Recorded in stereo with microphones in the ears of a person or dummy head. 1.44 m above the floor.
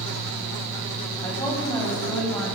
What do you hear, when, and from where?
1.2 s a woman speaking: 15° left (ahead or behind), 8.5 m